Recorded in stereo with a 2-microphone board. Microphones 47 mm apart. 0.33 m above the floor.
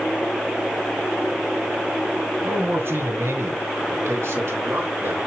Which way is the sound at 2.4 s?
60° right (ahead or behind).